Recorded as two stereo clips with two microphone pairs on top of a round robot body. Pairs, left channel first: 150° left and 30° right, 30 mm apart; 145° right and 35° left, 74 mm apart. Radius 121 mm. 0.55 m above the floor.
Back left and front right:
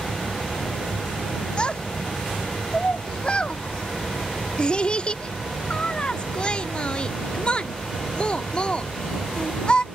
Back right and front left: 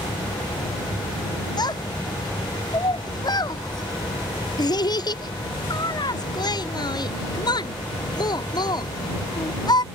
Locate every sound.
1.6 s a child speaking: 155° right